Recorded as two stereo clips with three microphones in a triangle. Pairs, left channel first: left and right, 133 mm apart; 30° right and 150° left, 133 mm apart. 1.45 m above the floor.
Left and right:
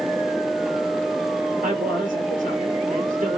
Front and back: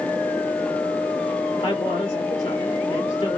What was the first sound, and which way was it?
A man speaking, 75° right.